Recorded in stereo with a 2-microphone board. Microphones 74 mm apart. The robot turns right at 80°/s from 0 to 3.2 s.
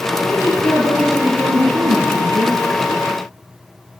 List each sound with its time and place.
0.2 s a woman speaking: 110° left, 6 m; by 2.6 s 55° right, 6 m